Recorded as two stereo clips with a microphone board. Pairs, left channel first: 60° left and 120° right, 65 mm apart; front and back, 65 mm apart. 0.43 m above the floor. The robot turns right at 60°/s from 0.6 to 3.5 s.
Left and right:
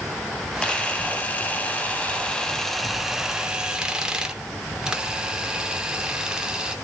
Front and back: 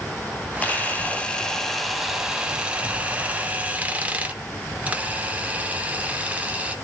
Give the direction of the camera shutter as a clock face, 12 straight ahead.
12 o'clock.